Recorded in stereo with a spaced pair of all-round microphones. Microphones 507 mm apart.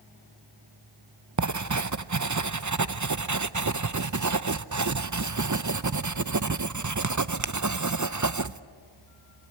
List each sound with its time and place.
1.4 s writing: 35° right (ahead or behind), 0.6 m